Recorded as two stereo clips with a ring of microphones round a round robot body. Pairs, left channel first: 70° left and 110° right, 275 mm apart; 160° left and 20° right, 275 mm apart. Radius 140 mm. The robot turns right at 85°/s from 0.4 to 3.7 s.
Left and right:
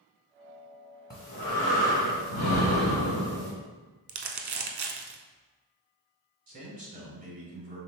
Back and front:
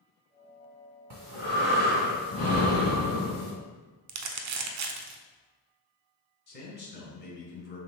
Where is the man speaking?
165° right, 1.7 m.